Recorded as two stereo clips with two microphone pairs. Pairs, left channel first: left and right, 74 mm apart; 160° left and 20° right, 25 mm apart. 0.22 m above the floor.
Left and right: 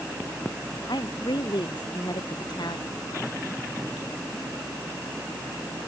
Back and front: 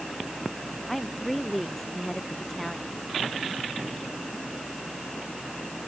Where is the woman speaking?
75° left.